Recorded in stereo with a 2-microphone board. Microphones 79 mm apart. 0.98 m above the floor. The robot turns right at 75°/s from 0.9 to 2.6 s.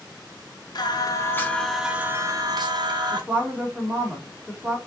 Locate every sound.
0.8 s singing: 115° left, 0.5 m; by 3.2 s 115° right, 0.5 m
3.1 s a woman speaking: 20° right (ahead or behind), 1.4 m